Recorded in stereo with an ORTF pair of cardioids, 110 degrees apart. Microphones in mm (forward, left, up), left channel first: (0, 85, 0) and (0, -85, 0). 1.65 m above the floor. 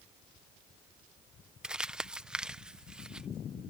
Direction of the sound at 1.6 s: 5° right.